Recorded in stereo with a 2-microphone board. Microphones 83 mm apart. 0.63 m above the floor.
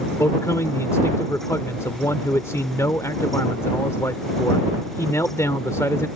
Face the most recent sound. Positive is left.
turn(degrees=40)  # may be behind; listen again after turning